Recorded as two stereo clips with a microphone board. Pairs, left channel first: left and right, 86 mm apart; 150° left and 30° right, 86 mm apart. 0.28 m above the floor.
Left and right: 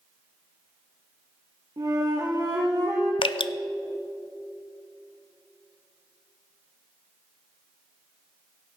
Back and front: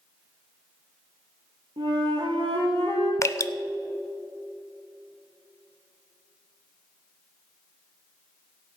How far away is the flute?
About 3.5 m.